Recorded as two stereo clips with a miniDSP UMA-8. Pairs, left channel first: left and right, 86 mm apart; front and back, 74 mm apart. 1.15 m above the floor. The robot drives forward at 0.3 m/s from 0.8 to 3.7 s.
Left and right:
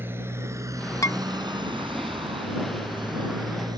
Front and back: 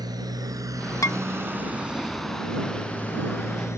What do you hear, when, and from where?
0.0 s a motorcycle: 155° right; by 3.8 s 50° right
1.0 s dishes clattering: 40° left